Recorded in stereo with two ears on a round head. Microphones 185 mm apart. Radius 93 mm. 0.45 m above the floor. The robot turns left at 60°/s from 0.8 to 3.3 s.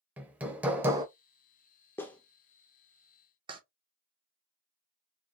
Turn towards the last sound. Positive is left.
turn(degrees=-25)  # may be behind; listen again after turning